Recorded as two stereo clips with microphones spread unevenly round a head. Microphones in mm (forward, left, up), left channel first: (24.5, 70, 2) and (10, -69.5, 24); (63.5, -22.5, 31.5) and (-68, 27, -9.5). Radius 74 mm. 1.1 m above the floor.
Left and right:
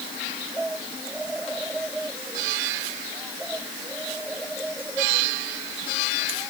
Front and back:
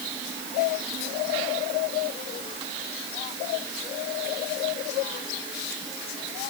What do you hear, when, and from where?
Only background noise.